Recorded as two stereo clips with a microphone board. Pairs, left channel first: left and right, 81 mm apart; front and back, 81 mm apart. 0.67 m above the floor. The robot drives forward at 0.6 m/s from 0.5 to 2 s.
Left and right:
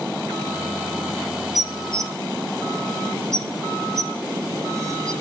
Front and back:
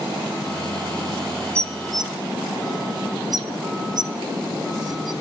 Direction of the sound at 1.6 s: 125° right.